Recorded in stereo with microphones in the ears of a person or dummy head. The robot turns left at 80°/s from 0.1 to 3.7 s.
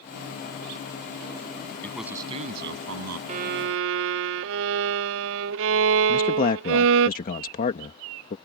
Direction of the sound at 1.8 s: 10° left.